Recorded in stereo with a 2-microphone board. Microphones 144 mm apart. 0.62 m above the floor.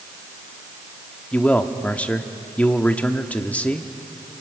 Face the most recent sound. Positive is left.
turn(degrees=10)  # may be behind; listen again after turning